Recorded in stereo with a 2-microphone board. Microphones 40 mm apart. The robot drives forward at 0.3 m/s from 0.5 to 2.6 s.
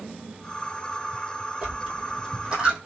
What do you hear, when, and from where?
1.6 s a dropped coin: 20° right (ahead or behind), 2.0 m